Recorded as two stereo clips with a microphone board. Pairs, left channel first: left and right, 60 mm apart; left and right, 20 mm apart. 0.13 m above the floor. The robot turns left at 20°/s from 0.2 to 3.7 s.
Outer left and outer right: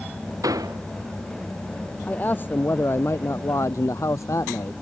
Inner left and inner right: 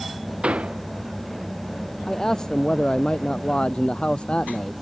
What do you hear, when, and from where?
0.4 s a door slam: 75° right (ahead or behind); by 0.8 s 80° right
2.1 s a man speaking: 150° left; by 4.7 s 120° left